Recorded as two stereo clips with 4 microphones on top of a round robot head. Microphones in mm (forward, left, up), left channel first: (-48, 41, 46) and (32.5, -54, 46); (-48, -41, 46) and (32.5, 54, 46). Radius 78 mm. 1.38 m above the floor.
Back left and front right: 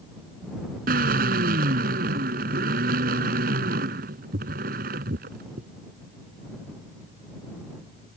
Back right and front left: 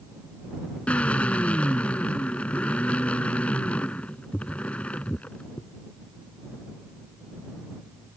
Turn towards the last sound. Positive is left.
turn(degrees=-50)